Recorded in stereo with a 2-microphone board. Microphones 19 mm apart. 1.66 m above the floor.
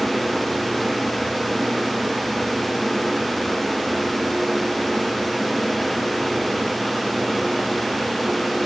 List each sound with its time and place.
Only background noise.